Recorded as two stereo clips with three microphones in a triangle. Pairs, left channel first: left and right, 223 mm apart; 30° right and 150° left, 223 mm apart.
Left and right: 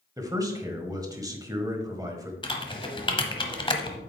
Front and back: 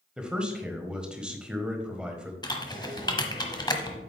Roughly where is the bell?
I don't hear a bell.